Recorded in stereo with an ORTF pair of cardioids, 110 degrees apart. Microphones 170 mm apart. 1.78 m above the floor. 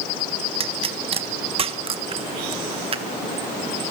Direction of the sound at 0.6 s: 35° right.